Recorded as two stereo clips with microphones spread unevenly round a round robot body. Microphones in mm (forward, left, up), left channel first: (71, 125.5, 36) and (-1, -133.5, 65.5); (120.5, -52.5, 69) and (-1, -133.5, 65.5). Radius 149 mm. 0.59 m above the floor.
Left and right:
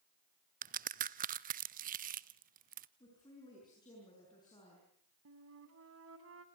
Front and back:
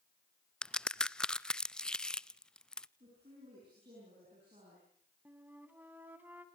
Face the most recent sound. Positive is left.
turn(degrees=-70)